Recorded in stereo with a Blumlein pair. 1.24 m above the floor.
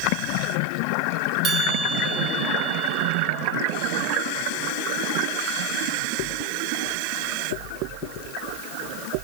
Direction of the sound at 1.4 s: 25° right.